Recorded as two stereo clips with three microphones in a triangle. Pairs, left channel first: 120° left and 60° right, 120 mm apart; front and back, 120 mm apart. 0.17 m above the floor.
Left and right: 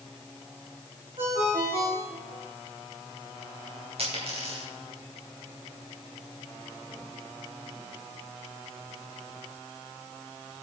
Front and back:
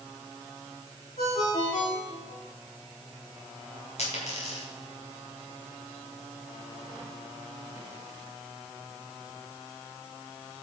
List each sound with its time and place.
1.2 s a ringtone: 20° right, 5.5 m
4.0 s a dropped coin: 25° right, 6.5 m